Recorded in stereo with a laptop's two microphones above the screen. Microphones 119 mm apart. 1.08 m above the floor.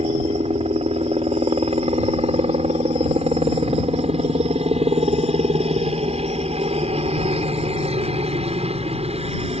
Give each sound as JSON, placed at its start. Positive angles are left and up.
{"t": 0.0, "sound": "a helicopter", "side_deg": -60}